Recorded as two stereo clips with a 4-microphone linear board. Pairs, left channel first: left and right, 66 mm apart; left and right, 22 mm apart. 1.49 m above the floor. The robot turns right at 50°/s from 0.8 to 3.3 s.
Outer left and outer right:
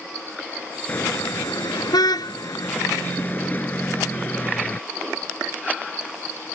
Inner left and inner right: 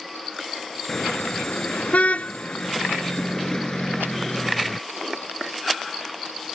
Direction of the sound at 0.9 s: 35° left (ahead or behind).